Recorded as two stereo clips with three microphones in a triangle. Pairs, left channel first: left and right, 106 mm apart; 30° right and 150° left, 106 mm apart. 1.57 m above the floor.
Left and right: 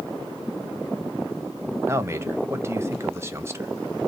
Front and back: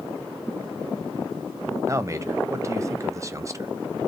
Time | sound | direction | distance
1.9 | a man speaking | 150° right | 0.6 m